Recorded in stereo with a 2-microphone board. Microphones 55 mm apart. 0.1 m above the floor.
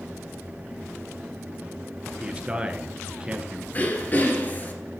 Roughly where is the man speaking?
Centre.